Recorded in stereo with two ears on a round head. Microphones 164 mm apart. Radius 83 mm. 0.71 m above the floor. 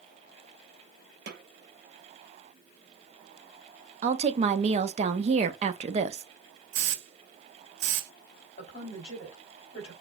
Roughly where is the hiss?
Right.